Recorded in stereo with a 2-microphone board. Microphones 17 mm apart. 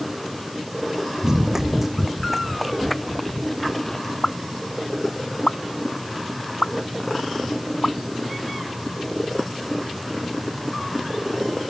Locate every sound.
1.2 s running footsteps: 40° right (ahead or behind); by 4.1 s 15° left (ahead or behind)
4.2 s a pop: 80° left